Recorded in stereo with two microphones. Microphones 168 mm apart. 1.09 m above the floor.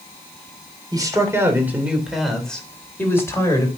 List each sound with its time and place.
0.9 s a man speaking: 25° right (ahead or behind), 3 m; by 3.7 s 20° left (ahead or behind), 4 m